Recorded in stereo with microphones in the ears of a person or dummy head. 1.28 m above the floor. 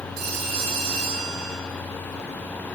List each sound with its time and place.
0.2 s a phone ringing: 60° right (ahead or behind), 9 m